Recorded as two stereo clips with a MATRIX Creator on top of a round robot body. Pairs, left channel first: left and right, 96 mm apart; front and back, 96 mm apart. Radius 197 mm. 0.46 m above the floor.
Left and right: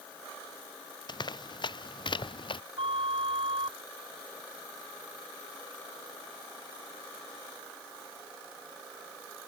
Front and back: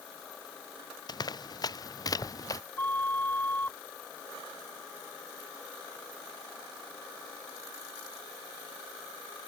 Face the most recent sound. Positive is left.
turn(degrees=-70)